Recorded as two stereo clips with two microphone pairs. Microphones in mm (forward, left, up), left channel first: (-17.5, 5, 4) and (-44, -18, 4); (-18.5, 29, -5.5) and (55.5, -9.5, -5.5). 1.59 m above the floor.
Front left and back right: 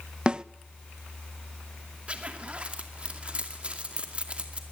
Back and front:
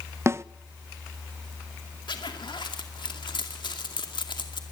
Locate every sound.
0.3 s a snare drum: 80° right, 0.5 m
2.1 s a zipper: 165° left, 2.5 m